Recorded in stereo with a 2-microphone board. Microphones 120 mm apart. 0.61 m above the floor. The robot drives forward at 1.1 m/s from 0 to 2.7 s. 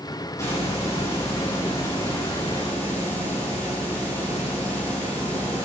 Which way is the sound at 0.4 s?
25° left (ahead or behind).